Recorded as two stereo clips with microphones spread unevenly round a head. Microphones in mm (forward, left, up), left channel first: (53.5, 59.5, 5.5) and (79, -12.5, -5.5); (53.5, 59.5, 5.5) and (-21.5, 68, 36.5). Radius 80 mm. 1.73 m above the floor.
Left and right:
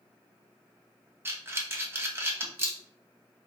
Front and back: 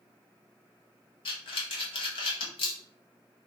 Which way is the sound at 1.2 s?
10° right.